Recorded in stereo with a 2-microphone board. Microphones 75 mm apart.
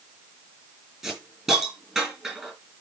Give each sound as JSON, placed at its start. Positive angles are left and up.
{"t": 1.0, "sound": "a hiss", "side_deg": -5, "distance_m": 6.0}